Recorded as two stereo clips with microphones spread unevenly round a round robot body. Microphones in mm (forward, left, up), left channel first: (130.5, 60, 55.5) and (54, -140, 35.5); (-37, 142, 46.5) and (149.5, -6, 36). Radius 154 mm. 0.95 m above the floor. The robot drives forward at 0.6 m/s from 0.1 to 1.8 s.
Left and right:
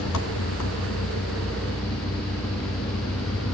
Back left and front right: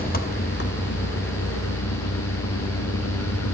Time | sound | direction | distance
0.0 | an engine running | 90° left | 2.0 m